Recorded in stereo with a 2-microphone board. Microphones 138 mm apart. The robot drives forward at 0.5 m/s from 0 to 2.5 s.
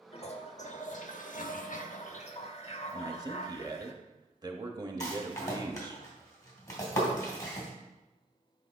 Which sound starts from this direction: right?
A man speaking, at 2.9 s.